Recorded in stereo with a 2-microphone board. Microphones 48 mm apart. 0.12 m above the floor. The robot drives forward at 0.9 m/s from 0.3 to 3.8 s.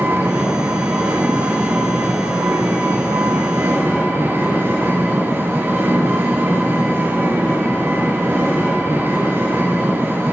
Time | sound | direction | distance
0.0 | an engine running | 70° right (ahead or behind) | 9 m